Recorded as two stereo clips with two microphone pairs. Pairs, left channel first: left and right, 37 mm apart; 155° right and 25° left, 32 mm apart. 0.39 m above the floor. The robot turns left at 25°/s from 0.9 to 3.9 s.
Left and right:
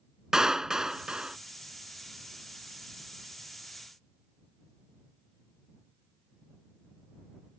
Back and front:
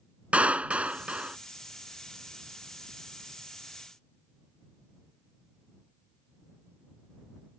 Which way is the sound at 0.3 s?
20° right.